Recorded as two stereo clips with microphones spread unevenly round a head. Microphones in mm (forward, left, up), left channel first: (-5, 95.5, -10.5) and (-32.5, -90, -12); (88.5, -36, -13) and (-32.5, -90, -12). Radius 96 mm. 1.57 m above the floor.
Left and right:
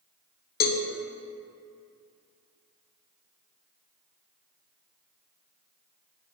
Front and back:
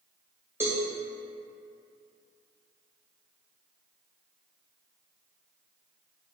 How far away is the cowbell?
About 0.5 m.